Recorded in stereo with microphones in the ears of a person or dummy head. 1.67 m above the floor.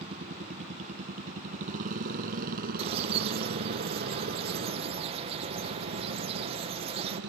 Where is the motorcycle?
40° right (ahead or behind); by 7.3 s 70° right (ahead or behind).